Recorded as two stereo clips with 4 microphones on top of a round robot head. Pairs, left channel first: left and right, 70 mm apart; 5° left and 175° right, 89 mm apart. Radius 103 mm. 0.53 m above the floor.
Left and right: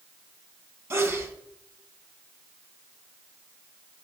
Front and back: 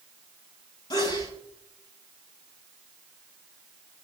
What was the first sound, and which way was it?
A sneeze, 40° right.